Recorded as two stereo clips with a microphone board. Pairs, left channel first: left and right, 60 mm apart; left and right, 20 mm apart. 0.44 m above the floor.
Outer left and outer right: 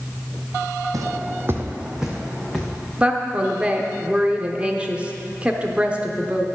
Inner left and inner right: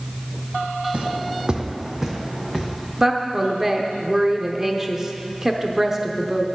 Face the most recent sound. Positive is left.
turn(degrees=-20)  # may be behind; listen again after turning